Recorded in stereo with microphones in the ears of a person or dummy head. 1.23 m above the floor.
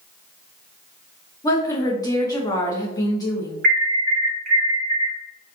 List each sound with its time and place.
1.4 s a woman speaking: 20° left (ahead or behind), 0.9 m
3.6 s an alarm: 50° right (ahead or behind), 0.9 m